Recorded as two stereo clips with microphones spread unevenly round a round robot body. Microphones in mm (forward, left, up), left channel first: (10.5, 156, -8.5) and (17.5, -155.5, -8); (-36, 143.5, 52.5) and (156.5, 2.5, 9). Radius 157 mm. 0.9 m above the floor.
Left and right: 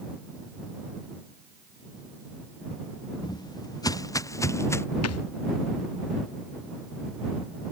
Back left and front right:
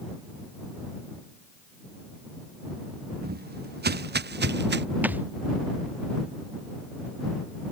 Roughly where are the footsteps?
Ahead.